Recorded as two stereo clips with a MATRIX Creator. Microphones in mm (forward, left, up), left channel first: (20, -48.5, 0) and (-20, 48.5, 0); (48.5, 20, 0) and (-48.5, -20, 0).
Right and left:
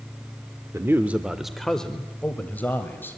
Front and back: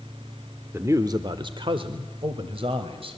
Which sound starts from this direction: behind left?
A man speaking, at 0.7 s.